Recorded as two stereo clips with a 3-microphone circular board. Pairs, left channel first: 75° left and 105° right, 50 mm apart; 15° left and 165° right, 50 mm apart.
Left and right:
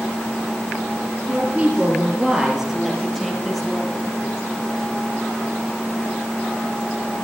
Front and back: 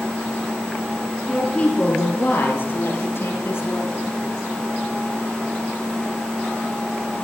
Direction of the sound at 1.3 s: 50° right.